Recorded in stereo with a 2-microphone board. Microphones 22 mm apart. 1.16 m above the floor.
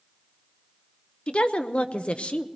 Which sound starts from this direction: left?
A woman speaking, at 1.3 s.